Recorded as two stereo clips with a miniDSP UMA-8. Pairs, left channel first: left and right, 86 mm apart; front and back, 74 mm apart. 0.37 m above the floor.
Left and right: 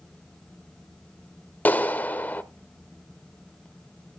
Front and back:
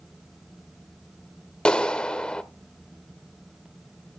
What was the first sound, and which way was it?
A clap, 60° left.